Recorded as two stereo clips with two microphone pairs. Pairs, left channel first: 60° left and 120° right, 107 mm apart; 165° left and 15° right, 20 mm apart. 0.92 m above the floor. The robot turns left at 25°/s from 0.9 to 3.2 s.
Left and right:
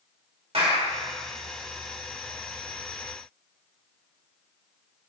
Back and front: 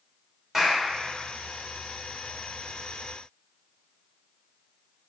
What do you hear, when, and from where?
0.5 s a clap: 95° right, 2.5 m